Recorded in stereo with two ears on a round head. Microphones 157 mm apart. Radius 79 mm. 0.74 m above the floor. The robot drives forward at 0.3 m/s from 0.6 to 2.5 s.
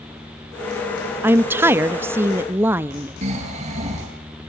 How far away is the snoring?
About 8.5 m.